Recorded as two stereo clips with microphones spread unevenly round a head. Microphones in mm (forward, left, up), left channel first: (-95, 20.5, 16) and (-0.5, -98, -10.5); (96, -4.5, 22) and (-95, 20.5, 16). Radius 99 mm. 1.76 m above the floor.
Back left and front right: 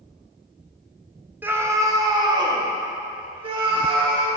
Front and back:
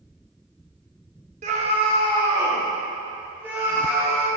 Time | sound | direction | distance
1.4 | a scream | 130° right | 1.2 m